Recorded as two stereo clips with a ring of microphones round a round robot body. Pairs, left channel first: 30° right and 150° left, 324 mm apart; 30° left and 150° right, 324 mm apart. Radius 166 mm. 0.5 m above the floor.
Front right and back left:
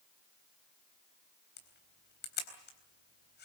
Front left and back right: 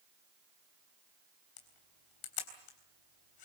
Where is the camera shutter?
30° left, 3.5 m.